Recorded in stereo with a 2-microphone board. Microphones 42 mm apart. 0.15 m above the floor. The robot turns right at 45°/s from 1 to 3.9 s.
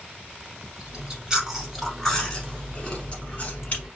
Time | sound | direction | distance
0.8 | chewing | 40° right | 0.9 m